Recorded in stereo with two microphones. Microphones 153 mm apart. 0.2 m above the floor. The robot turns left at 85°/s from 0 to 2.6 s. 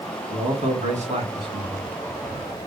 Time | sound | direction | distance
0.3 | a man speaking | 35° right | 1.7 m